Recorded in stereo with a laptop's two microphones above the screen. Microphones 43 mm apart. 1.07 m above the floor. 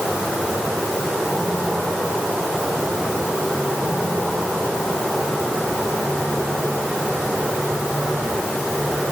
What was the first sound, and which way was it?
Only background noise.